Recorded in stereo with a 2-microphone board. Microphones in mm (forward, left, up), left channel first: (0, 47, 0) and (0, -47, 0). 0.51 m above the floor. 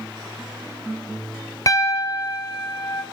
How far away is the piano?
About 1.2 m.